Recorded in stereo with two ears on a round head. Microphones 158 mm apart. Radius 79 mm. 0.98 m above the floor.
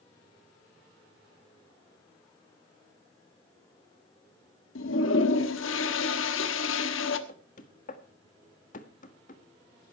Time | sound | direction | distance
4.8 | a toilet flushing | 80° left | 1.4 m
7.3 | knocking | 45° left (ahead or behind) | 1.6 m